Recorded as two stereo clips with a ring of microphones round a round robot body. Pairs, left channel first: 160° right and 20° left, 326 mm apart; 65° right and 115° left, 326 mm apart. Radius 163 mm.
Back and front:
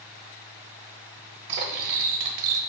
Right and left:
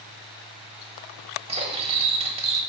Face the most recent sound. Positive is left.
turn(degrees=40)